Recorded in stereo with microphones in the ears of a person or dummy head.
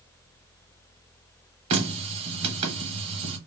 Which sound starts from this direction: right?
A running tap, at 1.7 s.